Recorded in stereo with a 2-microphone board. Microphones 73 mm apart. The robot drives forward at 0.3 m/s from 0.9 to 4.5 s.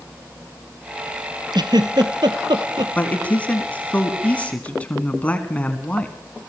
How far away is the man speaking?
About 1.7 m.